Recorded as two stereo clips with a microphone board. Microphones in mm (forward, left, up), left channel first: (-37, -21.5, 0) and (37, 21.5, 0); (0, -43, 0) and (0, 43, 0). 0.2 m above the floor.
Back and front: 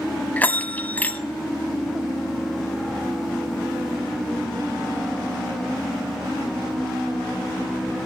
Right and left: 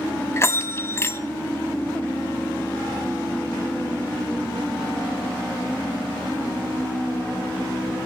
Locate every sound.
0.4 s a bell: 100° right, 0.9 m